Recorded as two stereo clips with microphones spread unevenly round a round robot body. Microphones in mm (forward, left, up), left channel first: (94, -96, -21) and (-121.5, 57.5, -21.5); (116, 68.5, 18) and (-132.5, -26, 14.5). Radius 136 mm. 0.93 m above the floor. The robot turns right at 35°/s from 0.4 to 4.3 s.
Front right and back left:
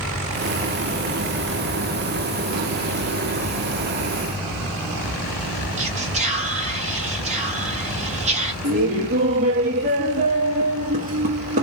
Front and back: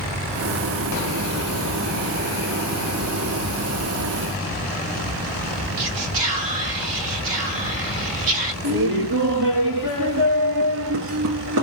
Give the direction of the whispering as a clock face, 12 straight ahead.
5 o'clock.